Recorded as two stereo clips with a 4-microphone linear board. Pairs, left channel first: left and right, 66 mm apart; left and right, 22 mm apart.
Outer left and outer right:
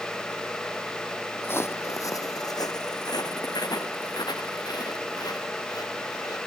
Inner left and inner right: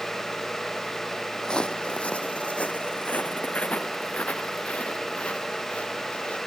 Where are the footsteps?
30° left (ahead or behind); by 6.4 s 70° left (ahead or behind).